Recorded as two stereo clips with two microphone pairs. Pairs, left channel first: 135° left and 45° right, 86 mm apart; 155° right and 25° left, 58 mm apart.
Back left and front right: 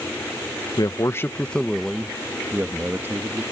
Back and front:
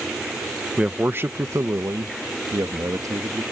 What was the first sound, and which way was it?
A man speaking, 95° left.